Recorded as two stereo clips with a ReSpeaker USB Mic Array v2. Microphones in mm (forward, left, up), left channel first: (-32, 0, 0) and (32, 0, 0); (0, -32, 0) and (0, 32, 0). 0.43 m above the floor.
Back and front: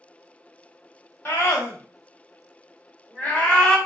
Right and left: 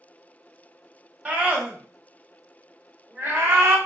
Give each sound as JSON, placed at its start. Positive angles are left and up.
{"t": 1.2, "sound": "a scream", "azimuth_deg": 160, "distance_m": 2.0}